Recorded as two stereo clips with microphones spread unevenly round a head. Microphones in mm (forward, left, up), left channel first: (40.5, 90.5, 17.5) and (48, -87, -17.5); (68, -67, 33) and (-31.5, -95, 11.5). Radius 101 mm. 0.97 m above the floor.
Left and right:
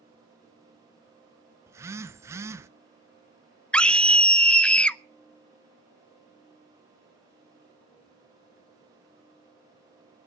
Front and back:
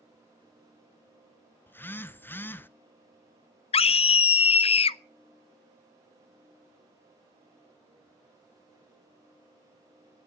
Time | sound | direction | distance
1.7 | a phone buzzing | 60° right | 0.8 m
3.7 | a scream | straight ahead | 0.6 m